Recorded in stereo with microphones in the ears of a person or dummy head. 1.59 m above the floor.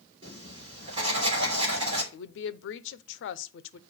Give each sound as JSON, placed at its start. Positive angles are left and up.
{"t": 0.2, "sound": "writing", "side_deg": -35, "distance_m": 3.0}
{"t": 2.1, "sound": "a woman speaking", "side_deg": 75, "distance_m": 0.7}